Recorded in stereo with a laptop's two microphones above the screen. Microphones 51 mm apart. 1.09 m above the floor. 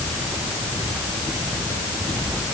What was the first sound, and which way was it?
Only background noise.